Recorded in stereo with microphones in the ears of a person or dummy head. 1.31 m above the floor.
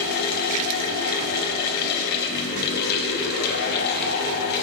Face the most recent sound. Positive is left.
turn(degrees=50)  # may be behind; listen again after turning